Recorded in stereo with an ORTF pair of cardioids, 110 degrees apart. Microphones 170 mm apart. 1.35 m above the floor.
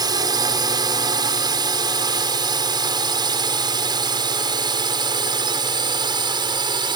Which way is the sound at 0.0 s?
25° right.